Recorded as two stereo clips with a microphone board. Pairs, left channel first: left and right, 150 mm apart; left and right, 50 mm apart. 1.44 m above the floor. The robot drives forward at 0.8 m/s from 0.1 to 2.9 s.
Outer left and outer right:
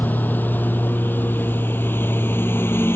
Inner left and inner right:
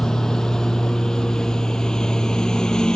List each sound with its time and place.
0.0 s a lawn mower: 10° left (ahead or behind); by 3.0 s 15° left (ahead or behind)